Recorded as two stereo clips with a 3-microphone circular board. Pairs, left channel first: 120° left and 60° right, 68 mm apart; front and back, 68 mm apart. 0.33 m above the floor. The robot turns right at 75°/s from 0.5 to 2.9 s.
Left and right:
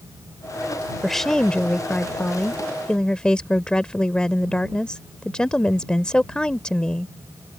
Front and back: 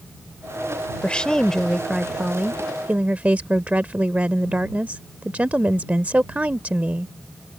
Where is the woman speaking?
35° left; by 7.1 s 175° left.